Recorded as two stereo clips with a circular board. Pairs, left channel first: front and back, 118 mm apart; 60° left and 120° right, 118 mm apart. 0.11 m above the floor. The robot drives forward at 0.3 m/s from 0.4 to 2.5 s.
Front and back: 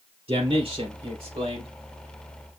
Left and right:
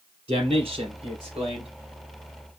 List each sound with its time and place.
0.3 s a man speaking: 150° right, 3 m; by 1.7 s 155° right, 3.5 m